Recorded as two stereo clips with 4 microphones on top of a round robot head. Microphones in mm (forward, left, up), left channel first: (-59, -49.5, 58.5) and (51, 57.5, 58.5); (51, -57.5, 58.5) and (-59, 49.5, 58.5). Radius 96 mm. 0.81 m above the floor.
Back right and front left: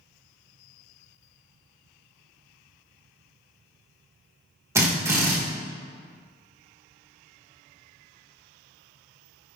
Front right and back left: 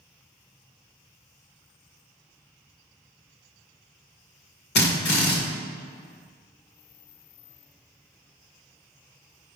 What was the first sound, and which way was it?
A drill, 30° right.